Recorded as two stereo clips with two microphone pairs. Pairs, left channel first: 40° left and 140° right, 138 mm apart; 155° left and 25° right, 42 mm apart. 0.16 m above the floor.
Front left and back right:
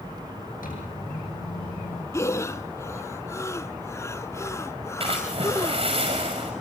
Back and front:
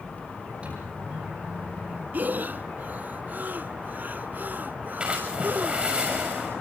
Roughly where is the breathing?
Ahead right.